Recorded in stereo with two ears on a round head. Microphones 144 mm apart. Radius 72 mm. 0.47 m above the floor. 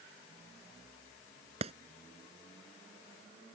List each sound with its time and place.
1.6 s a clap: 40° right (ahead or behind)